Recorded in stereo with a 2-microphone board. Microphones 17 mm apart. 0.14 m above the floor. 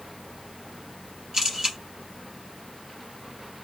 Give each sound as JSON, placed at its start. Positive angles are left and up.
{"t": 1.3, "sound": "a camera shutter", "side_deg": -35, "distance_m": 2.0}